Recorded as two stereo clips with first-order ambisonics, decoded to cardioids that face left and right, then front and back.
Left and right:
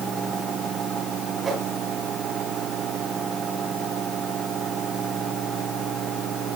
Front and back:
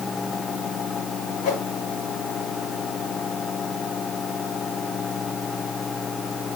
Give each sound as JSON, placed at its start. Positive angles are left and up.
{"t": 1.4, "sound": "a whoosh", "azimuth_deg": -20, "distance_m": 4.0}